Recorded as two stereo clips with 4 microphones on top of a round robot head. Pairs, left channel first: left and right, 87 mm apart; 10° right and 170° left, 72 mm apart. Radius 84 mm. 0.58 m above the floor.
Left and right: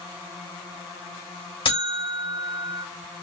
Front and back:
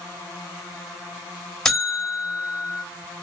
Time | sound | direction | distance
1.6 | a buzzer | 80° left | 3.5 m